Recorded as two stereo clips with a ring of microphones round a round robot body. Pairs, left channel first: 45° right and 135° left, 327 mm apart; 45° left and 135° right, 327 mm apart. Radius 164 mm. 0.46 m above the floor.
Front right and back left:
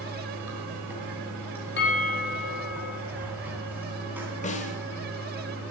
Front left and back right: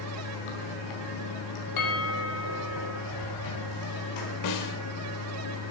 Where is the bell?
15° left, 3.5 m.